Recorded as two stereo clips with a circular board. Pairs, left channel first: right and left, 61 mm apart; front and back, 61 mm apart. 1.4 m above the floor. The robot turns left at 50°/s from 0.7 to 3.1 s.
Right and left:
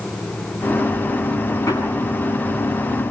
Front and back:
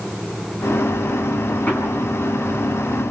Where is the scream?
I don't hear a scream.